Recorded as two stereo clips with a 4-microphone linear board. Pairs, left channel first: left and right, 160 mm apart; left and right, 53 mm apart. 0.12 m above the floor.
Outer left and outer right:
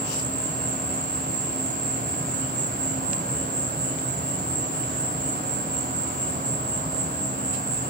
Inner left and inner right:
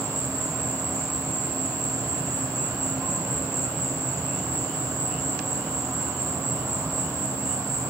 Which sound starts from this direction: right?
An insect, at 0.0 s.